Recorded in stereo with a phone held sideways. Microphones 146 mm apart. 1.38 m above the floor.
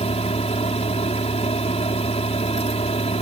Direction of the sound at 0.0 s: 45° left (ahead or behind).